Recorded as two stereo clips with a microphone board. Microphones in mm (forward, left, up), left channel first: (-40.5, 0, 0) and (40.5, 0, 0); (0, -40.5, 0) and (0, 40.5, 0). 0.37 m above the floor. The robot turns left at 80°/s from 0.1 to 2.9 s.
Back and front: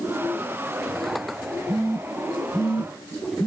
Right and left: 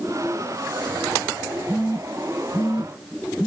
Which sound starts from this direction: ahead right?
A phone buzzing, at 1.7 s.